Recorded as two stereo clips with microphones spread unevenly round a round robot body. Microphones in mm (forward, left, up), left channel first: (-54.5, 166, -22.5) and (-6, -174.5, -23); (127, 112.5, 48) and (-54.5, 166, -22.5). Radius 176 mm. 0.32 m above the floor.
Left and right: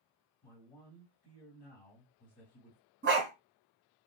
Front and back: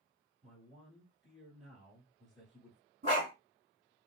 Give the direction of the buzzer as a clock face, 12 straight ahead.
I don't hear a buzzer.